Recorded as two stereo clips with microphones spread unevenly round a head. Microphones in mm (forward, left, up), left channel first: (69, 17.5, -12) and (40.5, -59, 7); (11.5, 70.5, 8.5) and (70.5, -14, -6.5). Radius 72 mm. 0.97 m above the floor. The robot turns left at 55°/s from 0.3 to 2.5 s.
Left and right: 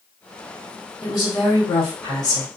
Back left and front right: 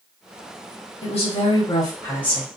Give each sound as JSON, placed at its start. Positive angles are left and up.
{"t": 1.0, "sound": "a woman speaking", "azimuth_deg": 115, "distance_m": 1.4}